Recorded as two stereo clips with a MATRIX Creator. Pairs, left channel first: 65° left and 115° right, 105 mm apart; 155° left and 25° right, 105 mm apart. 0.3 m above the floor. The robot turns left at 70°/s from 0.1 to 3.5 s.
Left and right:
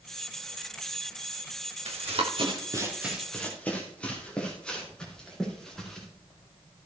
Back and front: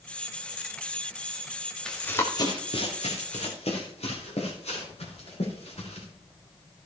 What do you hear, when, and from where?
1.9 s running footsteps: 120° right, 3.5 m; by 6.0 s 155° left, 6.5 m